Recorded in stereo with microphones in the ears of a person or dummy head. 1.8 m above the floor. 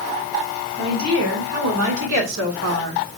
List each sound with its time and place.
0.8 s a woman speaking: 75° right (ahead or behind), 2.0 m; by 3.0 s 60° right (ahead or behind), 0.8 m